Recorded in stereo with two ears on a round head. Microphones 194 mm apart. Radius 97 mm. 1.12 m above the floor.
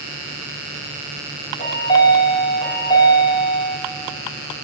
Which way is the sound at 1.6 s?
25° left (ahead or behind).